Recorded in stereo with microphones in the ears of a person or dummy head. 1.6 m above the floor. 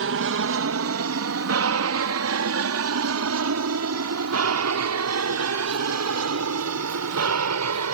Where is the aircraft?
60° right (ahead or behind); by 7.9 s 80° right.